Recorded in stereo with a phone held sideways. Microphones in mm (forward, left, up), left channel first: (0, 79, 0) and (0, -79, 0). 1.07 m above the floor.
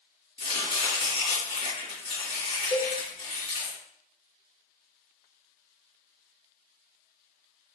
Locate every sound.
0.4 s chopping: 35° left (ahead or behind), 2.5 m
2.7 s a cowbell: 25° left (ahead or behind), 0.7 m